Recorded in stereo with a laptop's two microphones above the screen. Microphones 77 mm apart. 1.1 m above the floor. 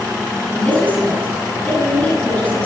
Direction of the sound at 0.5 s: 20° left (ahead or behind).